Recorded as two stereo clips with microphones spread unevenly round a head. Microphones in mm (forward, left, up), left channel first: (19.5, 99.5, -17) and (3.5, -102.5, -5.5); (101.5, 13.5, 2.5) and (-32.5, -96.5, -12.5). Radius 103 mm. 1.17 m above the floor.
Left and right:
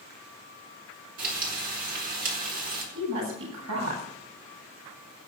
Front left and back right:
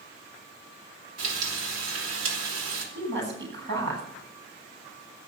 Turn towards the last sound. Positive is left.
turn(degrees=-125)